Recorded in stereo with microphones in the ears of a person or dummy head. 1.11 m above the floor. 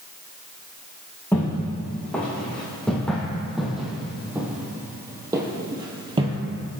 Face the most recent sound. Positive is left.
turn(degrees=-30)  # may be behind; listen again after turning